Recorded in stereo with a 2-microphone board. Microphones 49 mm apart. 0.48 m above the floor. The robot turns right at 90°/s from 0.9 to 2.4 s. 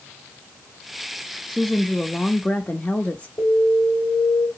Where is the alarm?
20° left (ahead or behind), 3 m.